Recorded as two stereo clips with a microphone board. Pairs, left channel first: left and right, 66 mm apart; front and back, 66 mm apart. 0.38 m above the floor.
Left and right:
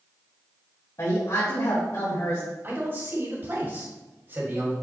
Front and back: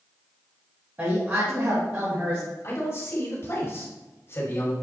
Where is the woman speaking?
125° left, 2.5 m.